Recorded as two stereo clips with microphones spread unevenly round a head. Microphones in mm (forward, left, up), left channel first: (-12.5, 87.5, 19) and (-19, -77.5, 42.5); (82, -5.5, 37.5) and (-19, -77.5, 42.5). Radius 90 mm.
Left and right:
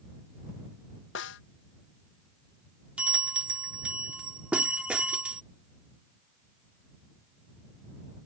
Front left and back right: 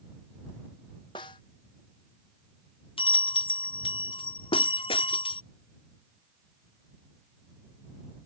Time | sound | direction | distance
1.1 | a snare drum | 100° left | ?
3.0 | a bell | 10° right | ?